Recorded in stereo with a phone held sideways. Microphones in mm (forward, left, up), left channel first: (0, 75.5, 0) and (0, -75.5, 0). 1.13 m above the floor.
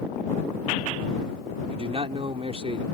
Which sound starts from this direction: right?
A man speaking, at 1.7 s.